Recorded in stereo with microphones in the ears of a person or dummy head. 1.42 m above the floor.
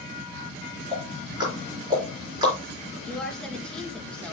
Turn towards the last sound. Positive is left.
turn(degrees=10)  # may be behind; listen again after turning